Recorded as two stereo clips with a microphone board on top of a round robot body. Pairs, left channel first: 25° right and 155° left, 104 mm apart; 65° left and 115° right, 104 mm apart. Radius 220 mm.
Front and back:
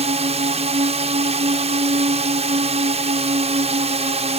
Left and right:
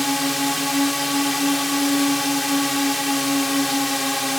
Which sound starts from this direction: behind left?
A drone, at 0.0 s.